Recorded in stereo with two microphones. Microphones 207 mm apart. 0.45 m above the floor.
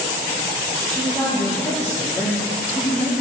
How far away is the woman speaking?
About 7 m.